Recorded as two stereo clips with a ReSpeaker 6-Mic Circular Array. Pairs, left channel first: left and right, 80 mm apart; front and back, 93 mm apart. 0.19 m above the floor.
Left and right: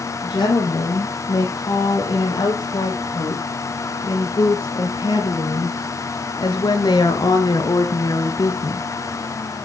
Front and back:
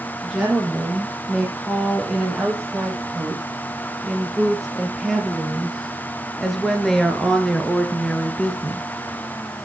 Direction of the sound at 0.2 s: 95° left.